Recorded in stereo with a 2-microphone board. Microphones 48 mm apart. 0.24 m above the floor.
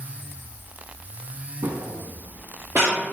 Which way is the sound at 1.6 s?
80° right.